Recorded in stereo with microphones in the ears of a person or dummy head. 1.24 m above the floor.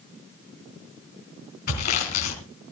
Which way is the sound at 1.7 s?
50° left (ahead or behind).